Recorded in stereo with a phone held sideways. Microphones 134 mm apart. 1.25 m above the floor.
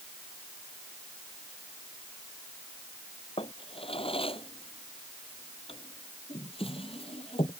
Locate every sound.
3.4 s a drawer: 45° left (ahead or behind)